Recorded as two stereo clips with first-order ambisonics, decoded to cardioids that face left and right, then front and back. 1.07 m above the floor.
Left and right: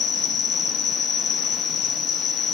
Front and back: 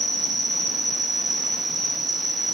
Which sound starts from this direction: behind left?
An insect, at 0.0 s.